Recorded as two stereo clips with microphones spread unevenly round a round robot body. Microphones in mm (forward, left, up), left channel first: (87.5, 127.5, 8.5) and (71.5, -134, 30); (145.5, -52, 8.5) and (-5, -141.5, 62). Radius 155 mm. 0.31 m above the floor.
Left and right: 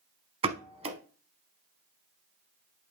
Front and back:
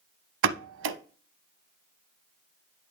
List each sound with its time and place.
0.4 s a pop: 165° right, 0.5 m